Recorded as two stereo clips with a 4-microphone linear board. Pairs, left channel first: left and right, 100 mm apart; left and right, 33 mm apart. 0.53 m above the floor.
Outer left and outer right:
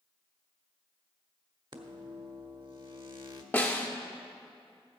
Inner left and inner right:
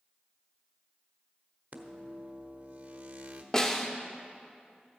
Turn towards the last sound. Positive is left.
turn(degrees=20)  # may be behind; listen again after turning